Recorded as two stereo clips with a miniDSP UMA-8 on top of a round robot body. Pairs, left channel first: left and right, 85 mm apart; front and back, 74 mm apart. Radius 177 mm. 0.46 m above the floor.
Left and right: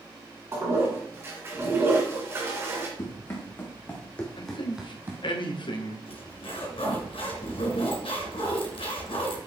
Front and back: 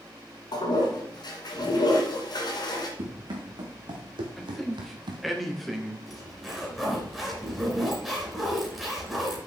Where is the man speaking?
90° left, 2 m.